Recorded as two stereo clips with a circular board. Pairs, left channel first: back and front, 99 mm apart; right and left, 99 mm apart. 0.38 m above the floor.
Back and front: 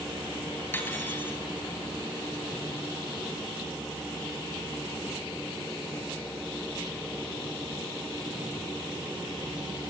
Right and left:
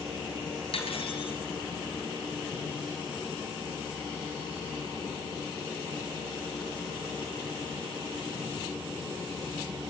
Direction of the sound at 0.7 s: 110° right.